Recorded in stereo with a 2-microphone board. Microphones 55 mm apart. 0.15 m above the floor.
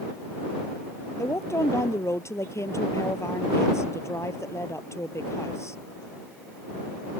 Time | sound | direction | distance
1.2 | a woman speaking | 60° left (ahead or behind) | ?